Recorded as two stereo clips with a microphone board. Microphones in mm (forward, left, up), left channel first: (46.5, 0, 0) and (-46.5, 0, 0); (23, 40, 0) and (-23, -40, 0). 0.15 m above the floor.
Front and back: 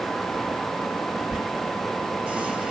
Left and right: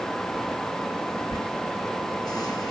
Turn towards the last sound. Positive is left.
turn(degrees=100)